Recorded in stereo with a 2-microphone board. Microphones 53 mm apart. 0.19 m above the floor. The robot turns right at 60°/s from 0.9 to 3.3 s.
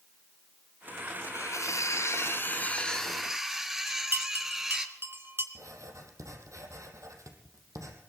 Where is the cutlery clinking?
65° left, 2 m; by 4.9 s 170° right, 2 m.